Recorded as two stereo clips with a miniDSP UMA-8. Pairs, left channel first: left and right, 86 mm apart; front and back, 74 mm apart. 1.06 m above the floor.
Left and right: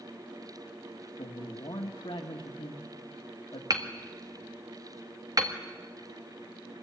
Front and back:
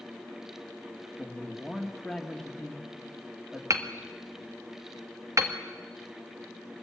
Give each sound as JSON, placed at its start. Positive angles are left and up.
{"t": 1.2, "sound": "a man speaking", "azimuth_deg": 85, "distance_m": 1.7}
{"t": 3.7, "sound": "hammering", "azimuth_deg": -135, "distance_m": 1.7}